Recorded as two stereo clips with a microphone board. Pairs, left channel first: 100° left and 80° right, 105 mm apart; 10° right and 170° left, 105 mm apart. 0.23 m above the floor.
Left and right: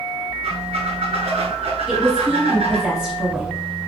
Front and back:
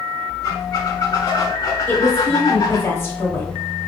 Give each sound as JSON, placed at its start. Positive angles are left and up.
{"t": 0.4, "sound": "a squeak", "azimuth_deg": -65, "distance_m": 0.6}
{"t": 1.9, "sound": "a woman speaking", "azimuth_deg": -5, "distance_m": 1.0}